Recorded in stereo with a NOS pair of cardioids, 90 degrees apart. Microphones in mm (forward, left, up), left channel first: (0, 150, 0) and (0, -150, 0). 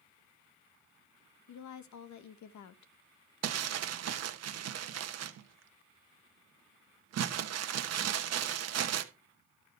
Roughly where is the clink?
No clink in this recording.